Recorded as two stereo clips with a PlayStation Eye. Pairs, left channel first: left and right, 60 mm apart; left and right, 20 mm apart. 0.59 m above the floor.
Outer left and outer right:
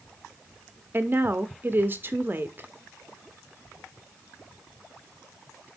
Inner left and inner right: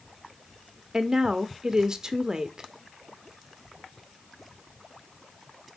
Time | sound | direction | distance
0.9 | a woman speaking | 35° right (ahead or behind) | 0.7 m